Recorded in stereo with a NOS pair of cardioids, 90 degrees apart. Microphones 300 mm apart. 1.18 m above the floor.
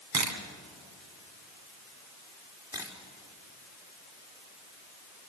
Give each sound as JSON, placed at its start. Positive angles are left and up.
{"t": 0.1, "sound": "a camera shutter", "azimuth_deg": -65, "distance_m": 3.0}
{"t": 2.7, "sound": "a camera shutter", "azimuth_deg": -10, "distance_m": 4.5}